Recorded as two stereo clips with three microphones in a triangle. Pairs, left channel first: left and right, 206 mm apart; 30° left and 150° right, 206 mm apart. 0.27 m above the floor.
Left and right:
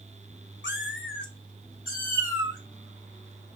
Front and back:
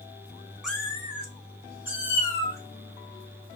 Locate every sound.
0.6 s a cat meowing: 120° left, 0.6 m; by 2.6 s 40° left, 2 m